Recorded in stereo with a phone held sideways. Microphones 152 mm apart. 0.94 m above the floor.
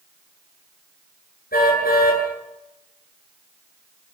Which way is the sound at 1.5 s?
85° left.